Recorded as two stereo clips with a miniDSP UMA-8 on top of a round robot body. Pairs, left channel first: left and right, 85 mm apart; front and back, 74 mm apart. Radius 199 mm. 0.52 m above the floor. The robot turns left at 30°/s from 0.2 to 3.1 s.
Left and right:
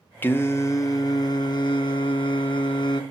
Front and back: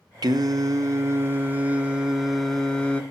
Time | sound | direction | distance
0.2 | singing | 155° left | 0.9 m